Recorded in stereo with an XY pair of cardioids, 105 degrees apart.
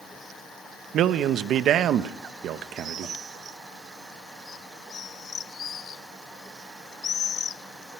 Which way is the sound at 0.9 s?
70° right.